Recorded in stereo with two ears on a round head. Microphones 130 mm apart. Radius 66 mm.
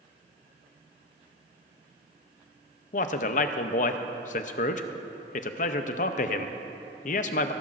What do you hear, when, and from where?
2.9 s a man speaking: 60° left (ahead or behind), 0.7 m